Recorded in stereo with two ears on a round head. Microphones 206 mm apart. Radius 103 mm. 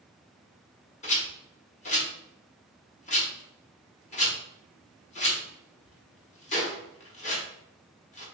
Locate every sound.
1.0 s a rattle: 30° left (ahead or behind), 1.0 m